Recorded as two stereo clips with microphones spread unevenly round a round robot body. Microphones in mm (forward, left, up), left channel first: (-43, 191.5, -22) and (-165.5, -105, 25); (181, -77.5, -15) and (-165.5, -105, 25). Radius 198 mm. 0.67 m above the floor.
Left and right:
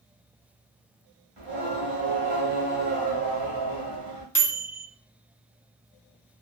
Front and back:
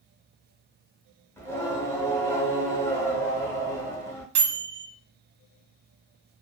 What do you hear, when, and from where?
1.4 s singing: 80° right, 1.1 m
4.3 s a microwave: 145° left, 0.9 m